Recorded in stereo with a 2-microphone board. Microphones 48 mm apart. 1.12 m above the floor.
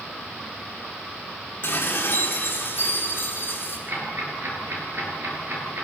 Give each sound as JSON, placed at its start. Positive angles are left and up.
{"t": 1.6, "sound": "dishes clattering", "side_deg": 45, "distance_m": 8.0}
{"t": 3.9, "sound": "ticking", "side_deg": -55, "distance_m": 9.5}